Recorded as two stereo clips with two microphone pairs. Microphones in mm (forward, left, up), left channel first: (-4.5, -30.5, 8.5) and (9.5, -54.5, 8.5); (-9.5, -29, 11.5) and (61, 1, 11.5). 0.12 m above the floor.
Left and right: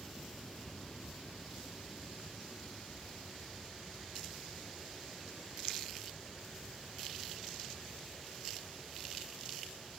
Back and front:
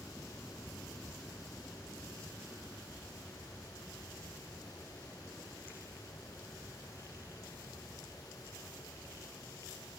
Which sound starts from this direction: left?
An aircraft, at 0.0 s.